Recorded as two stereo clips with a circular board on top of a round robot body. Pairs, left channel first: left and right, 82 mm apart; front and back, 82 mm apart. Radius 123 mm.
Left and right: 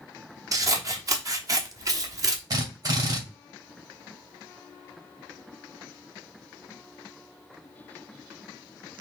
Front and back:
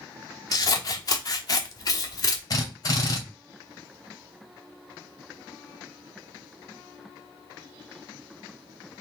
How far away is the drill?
About 2 m.